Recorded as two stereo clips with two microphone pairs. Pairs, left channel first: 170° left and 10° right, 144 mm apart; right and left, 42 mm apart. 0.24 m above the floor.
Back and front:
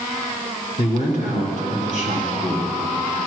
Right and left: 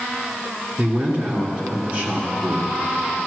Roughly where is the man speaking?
Behind left.